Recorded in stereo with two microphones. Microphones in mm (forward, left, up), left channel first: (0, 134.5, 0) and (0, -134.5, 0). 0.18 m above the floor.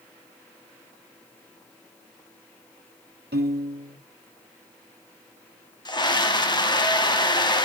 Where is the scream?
15° left (ahead or behind), 1.0 m.